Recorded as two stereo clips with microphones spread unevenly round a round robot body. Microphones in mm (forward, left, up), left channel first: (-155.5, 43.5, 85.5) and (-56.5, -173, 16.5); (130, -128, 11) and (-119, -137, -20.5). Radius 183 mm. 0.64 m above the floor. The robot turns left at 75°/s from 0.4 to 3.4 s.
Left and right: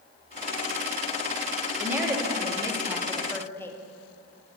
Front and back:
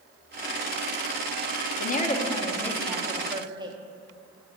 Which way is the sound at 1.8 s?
25° right.